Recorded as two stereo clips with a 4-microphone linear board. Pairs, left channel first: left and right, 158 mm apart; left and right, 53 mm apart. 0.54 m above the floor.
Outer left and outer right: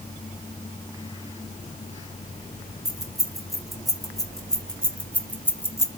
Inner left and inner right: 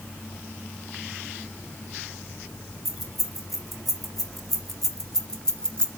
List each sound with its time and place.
2.9 s keys jangling: centre (ahead or behind), 3 m; by 5.9 s 20° left (ahead or behind), 1.1 m